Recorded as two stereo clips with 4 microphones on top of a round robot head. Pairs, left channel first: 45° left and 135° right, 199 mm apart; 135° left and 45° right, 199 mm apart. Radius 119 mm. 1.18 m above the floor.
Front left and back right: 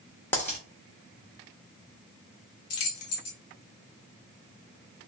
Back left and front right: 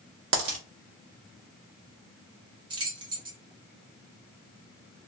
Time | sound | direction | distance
0.3 | a dropped coin | 35° right | 0.7 m
2.7 | keys jangling | 25° left | 0.6 m